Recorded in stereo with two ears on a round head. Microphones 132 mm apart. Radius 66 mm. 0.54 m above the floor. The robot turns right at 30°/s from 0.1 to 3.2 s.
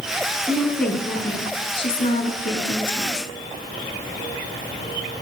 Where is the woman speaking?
5° right, 6.5 m; by 3.3 s 80° left, 6.5 m.